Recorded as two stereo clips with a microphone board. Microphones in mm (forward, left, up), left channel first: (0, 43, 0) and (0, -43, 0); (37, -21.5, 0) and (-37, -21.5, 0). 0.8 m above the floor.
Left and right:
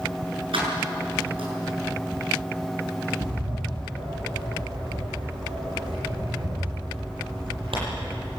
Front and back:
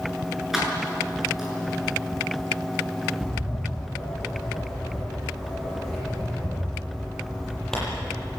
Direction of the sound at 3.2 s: 85° right.